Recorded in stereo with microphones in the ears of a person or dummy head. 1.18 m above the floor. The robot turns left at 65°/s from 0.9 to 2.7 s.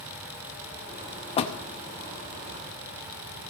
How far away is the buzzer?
No buzzer in this recording.